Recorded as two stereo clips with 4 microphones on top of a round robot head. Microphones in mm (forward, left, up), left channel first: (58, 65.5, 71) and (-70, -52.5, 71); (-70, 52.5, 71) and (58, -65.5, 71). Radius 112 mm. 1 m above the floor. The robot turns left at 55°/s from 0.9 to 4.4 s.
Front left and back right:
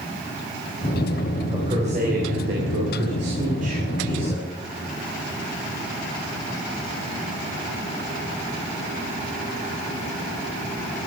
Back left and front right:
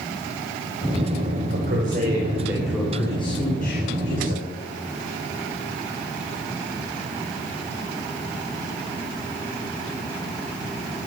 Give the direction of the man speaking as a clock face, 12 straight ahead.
2 o'clock.